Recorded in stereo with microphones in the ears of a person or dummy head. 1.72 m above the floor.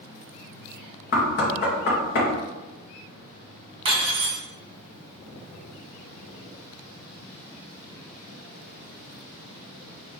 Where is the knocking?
65° left (ahead or behind), 1.5 m.